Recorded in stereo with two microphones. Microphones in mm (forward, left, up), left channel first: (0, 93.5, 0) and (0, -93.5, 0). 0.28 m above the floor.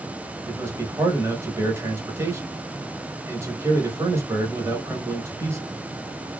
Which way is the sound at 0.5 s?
15° right (ahead or behind).